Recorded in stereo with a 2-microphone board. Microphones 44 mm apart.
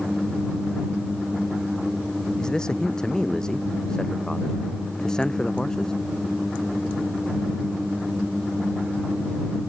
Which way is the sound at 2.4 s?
15° left (ahead or behind).